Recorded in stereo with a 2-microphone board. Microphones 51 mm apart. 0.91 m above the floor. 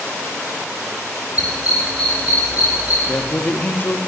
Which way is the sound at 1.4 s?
85° left.